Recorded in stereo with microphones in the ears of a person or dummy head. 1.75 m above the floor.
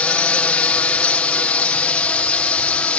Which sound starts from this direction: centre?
A drone, at 0.0 s.